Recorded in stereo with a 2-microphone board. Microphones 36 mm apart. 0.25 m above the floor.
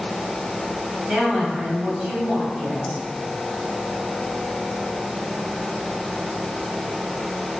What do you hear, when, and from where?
1.1 s a woman speaking: 25° right (ahead or behind), 1.2 m